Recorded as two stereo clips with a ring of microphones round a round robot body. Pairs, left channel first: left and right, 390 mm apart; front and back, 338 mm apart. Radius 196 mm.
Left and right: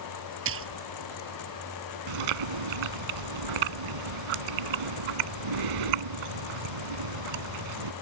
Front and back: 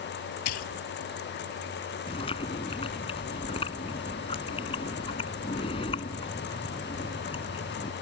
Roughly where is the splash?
Ahead right.